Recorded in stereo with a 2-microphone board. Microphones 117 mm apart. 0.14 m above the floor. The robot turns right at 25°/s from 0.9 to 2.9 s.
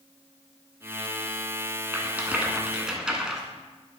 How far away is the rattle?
About 0.7 m.